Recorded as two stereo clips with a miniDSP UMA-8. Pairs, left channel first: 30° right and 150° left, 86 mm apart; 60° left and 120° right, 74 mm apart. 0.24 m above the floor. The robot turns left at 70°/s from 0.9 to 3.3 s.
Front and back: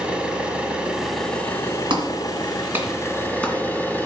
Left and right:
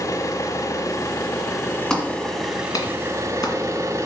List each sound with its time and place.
0.0 s an engine running: 75° left, 1.4 m; by 4.1 s 90° right, 1.4 m
1.9 s a clap: 145° left, 1.8 m; by 4.1 s 45° left, 1.8 m